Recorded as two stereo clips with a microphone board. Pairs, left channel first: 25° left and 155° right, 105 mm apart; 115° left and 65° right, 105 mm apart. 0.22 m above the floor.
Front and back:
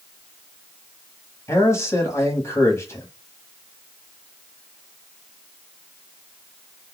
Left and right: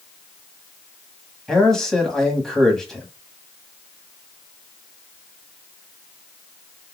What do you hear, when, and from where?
1.5 s a man speaking: 30° left, 1.3 m